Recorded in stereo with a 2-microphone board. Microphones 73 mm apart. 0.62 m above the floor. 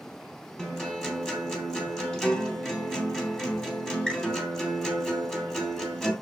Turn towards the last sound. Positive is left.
turn(degrees=10)  # may be behind; listen again after turning